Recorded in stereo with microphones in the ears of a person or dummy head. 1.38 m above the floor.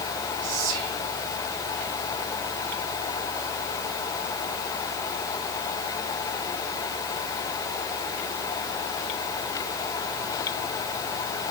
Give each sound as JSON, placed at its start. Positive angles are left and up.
{"t": 0.4, "sound": "whispering", "side_deg": -80, "distance_m": 5.5}